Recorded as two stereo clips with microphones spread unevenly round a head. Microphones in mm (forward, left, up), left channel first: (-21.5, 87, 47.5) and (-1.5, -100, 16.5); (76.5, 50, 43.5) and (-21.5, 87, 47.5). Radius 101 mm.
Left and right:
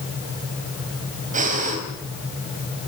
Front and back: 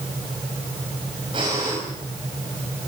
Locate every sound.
1.3 s breathing: 135° right, 4.5 m